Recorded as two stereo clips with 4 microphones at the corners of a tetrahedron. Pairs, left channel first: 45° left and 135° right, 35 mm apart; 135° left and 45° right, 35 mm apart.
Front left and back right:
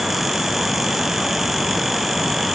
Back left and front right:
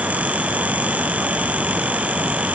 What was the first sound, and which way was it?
Only background noise.